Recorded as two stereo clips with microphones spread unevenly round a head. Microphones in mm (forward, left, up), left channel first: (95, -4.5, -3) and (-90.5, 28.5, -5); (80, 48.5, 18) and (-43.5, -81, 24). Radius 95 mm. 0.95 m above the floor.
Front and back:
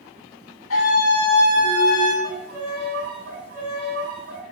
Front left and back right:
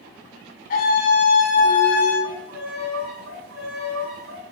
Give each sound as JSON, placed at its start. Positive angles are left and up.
{"t": 0.7, "sound": "a scream", "azimuth_deg": 5, "distance_m": 6.5}
{"t": 2.2, "sound": "a violin", "azimuth_deg": -150, "distance_m": 7.5}